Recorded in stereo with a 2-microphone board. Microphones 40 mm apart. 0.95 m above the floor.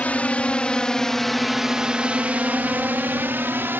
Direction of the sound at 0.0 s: 40° left (ahead or behind).